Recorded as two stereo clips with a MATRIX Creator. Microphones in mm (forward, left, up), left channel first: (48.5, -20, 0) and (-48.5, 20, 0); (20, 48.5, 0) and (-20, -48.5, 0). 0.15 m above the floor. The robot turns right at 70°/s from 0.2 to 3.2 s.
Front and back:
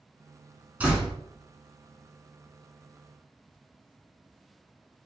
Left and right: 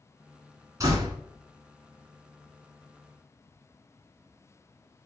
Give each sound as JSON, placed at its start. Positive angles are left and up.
{"t": 0.8, "sound": "a door slam", "azimuth_deg": -135, "distance_m": 1.2}